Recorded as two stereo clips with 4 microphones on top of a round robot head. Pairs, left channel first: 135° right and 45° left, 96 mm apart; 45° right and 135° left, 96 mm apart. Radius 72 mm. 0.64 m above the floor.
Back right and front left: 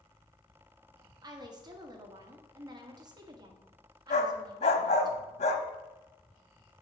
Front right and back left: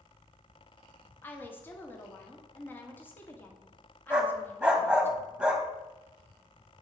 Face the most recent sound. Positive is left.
turn(degrees=-145)